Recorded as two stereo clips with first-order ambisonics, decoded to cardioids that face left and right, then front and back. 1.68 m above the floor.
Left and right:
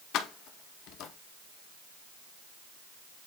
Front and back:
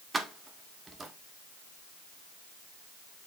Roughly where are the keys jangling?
Left.